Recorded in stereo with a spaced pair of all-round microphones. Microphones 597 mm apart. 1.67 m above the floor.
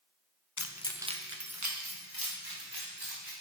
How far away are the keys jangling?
About 0.7 m.